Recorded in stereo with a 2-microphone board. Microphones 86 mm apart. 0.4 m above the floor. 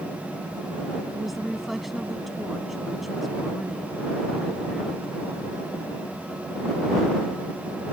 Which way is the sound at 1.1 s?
Centre (ahead or behind).